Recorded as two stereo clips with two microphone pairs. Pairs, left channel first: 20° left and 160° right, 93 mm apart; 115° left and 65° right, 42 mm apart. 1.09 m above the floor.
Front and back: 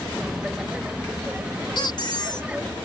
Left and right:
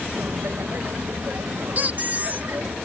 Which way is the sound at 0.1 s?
75° right.